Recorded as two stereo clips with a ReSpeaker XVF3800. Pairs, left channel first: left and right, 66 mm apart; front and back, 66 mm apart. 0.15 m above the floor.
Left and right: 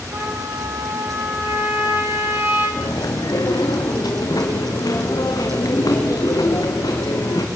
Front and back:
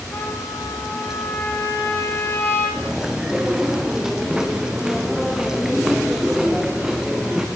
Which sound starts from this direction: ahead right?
A trumpet, at 0.1 s.